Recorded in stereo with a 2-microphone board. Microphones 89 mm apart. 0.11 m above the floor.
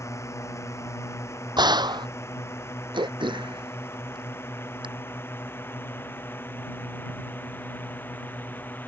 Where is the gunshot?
55° right (ahead or behind).